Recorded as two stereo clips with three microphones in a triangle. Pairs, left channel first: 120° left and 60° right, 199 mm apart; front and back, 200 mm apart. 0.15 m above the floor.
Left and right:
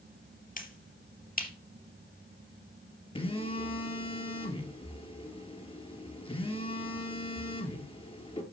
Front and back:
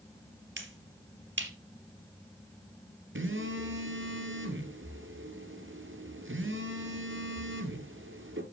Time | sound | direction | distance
0.6 | a finger snap | 165° left | 2.5 m
3.1 | a phone buzzing | straight behind | 1.9 m